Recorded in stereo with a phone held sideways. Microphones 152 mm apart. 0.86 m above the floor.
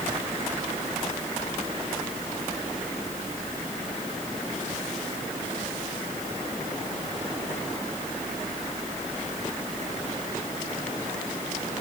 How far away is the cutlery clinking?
No cutlery clinking in this recording.